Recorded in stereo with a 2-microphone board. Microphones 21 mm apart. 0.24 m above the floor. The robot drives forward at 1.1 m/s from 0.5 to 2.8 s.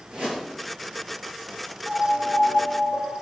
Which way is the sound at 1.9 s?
5° right (ahead or behind).